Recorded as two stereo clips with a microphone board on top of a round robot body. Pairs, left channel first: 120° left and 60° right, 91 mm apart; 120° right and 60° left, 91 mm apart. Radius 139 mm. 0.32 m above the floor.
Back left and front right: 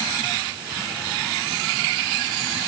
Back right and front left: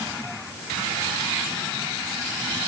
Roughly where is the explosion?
I don't hear an explosion.